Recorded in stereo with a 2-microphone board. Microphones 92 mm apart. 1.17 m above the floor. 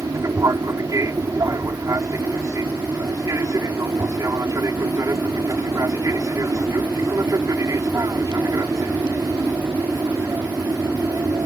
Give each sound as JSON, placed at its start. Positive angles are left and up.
{"t": 0.0, "sound": "an aircraft", "side_deg": -35}